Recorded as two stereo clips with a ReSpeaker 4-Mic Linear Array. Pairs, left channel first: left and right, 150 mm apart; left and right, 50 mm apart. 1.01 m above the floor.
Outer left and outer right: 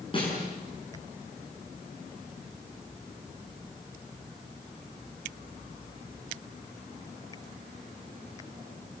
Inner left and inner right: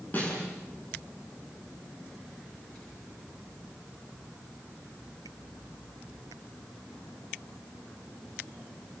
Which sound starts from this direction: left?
A snare drum, at 0.1 s.